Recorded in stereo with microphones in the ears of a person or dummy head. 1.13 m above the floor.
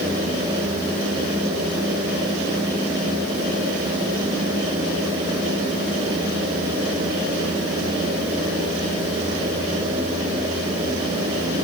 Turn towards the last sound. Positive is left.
No sound to turn to.